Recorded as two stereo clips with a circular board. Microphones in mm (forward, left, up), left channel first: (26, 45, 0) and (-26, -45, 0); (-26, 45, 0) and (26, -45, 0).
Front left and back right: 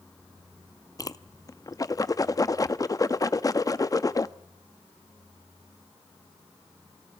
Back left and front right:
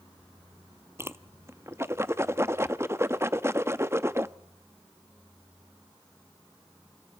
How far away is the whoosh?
About 0.6 m.